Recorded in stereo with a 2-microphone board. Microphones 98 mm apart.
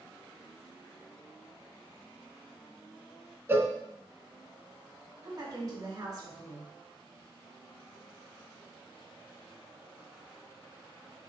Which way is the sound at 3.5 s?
20° right (ahead or behind).